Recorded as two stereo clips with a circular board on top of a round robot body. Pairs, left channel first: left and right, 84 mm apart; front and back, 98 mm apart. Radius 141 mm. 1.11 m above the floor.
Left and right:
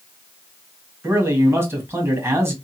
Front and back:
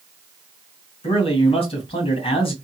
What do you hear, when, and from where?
1.0 s a man speaking: 25° right, 1.8 m